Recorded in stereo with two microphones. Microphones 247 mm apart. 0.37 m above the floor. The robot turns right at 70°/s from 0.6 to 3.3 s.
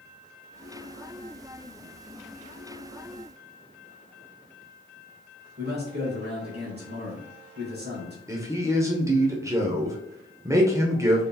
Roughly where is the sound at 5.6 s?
Right.